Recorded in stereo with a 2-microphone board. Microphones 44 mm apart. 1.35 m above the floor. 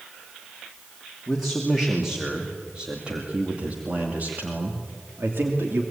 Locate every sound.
1.3 s a man speaking: 5° right (ahead or behind), 2.5 m; by 5.8 s 65° right (ahead or behind), 3 m